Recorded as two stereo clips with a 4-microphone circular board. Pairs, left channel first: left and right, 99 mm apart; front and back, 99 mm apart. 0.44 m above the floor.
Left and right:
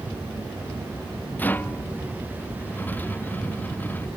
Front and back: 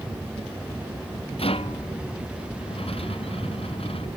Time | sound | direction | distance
1.4 | a rattle | 20° left | ?